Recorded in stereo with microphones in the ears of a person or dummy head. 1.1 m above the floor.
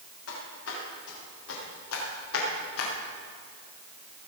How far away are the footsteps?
About 7 m.